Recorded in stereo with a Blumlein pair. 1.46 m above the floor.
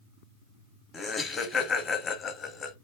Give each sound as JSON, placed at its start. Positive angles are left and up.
{"t": 0.9, "sound": "laughter", "azimuth_deg": 20, "distance_m": 0.9}